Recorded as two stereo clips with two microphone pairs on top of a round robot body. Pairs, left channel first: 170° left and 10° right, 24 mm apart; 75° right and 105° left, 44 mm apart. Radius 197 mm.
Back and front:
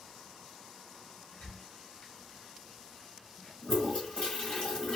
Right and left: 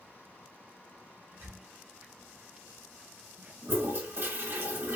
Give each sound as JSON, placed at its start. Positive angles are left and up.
{"t": 1.3, "sound": "a squeak", "azimuth_deg": 145, "distance_m": 2.0}
{"t": 3.6, "sound": "a toilet flushing", "azimuth_deg": 140, "distance_m": 3.0}